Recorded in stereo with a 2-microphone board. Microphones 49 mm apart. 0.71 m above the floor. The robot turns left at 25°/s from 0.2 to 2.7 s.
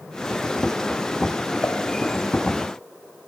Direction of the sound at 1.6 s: 60° left (ahead or behind).